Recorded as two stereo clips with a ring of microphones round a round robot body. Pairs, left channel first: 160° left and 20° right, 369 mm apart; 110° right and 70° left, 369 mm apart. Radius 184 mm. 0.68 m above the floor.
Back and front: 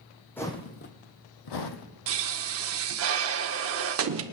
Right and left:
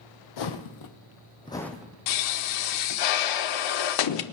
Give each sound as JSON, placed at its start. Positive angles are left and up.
{"t": 0.4, "sound": "footsteps", "azimuth_deg": -120, "distance_m": 1.4}
{"t": 2.1, "sound": "a pop", "azimuth_deg": -80, "distance_m": 0.8}